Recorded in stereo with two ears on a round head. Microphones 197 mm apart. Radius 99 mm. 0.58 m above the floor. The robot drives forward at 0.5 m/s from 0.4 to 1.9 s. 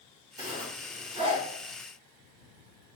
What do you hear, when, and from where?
0.4 s a zipper: 20° right (ahead or behind), 1.8 m; by 1.4 s 25° right (ahead or behind), 1.3 m